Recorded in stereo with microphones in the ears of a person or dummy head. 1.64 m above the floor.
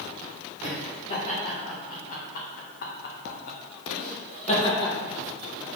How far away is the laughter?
About 1.8 m.